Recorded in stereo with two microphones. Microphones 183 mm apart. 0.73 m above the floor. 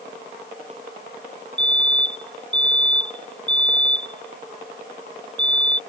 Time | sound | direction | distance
1.6 | a fire alarm | 75° right (ahead or behind) | ?